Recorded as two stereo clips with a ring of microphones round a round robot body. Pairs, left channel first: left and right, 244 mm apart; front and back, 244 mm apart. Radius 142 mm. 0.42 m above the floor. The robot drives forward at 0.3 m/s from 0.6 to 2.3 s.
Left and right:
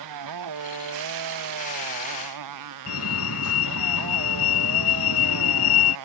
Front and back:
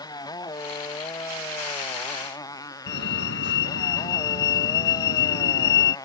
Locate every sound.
0.0 s a motorcycle: 75° right
2.9 s a fire alarm: 50° left